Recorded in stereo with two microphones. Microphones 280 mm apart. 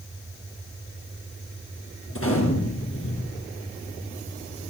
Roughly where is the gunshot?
Left.